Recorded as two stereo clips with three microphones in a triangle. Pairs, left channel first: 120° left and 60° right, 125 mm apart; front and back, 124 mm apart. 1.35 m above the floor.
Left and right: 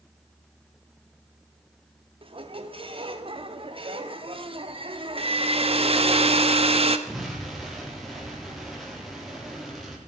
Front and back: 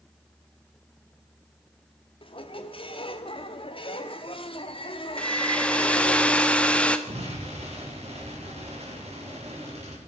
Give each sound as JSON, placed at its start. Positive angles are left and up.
{"t": 2.2, "sound": "a squeak", "azimuth_deg": -30, "distance_m": 1.2}
{"t": 5.2, "sound": "a hair dryer", "azimuth_deg": -80, "distance_m": 1.0}
{"t": 7.1, "sound": "an explosion", "azimuth_deg": -150, "distance_m": 4.0}